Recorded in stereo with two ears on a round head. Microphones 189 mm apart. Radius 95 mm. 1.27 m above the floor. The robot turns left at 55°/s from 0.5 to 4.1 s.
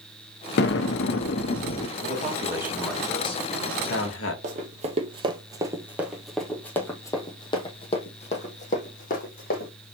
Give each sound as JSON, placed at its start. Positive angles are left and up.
{"t": 0.6, "sound": "an explosion", "azimuth_deg": 110, "distance_m": 1.0}
{"t": 2.0, "sound": "a man speaking", "azimuth_deg": -135, "distance_m": 1.9}
{"t": 4.4, "sound": "running footsteps", "side_deg": -35, "distance_m": 1.7}